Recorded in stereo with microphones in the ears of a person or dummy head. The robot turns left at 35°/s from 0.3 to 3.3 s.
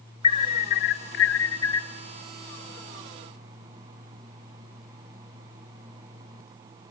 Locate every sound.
0.2 s an alarm: 140° left, 0.9 m; by 1.9 s 85° left, 0.9 m